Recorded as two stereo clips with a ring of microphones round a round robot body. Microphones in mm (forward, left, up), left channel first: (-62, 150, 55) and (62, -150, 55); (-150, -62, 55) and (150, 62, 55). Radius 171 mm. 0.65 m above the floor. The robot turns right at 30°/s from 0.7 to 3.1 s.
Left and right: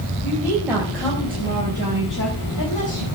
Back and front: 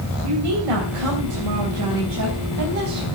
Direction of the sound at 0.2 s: 20° left.